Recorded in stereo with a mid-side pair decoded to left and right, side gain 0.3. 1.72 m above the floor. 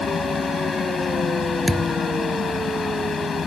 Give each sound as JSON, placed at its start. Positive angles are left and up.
{"t": 0.0, "sound": "a fan", "azimuth_deg": 60}
{"t": 1.7, "sound": "a thud", "azimuth_deg": -15}